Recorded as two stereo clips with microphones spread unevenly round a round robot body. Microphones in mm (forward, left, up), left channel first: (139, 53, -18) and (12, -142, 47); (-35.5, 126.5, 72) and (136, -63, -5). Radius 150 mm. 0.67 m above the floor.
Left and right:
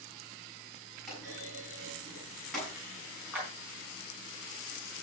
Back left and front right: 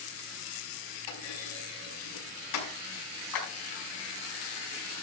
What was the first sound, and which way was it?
A clunk, 145° left.